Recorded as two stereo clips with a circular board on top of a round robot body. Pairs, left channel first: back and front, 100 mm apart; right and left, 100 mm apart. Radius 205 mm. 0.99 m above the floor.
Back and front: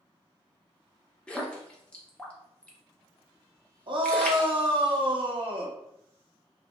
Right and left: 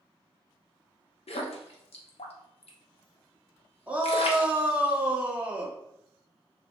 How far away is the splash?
About 0.7 m.